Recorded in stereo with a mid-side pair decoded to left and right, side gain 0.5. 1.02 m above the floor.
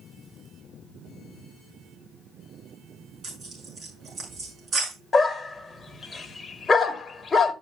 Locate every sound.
3.2 s tearing paper: 30° right, 7 m
5.1 s a dog barking: 25° left, 1.8 m